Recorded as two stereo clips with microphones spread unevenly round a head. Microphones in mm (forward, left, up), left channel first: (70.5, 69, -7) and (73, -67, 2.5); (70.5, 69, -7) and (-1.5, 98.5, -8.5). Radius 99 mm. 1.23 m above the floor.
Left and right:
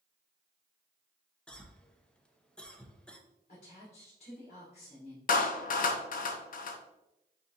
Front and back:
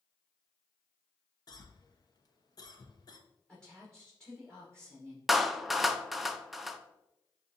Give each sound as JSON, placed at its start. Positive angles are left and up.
{"t": 1.5, "sound": "a cough", "azimuth_deg": 10, "distance_m": 1.0}
{"t": 3.5, "sound": "a woman speaking", "azimuth_deg": 55, "distance_m": 1.5}
{"t": 5.3, "sound": "a clap", "azimuth_deg": 70, "distance_m": 0.6}